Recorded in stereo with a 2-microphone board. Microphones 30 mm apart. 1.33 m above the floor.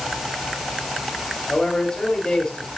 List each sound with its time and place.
1.5 s a man speaking: 30° left (ahead or behind), 4.5 m